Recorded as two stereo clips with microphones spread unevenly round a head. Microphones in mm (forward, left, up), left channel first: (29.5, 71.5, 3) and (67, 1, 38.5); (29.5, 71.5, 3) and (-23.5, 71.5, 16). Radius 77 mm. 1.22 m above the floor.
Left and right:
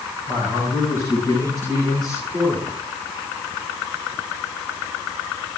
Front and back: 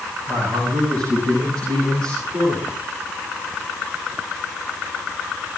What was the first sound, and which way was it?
A man speaking, 130° right.